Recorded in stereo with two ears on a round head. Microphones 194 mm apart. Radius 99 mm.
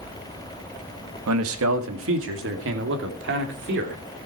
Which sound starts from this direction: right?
A man speaking, at 1.3 s.